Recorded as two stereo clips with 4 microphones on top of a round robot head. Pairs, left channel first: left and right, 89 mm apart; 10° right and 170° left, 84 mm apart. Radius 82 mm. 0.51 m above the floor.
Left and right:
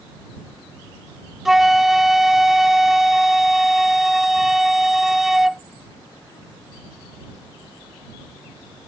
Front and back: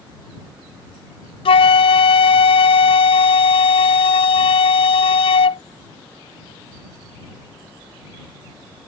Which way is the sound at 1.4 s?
5° right.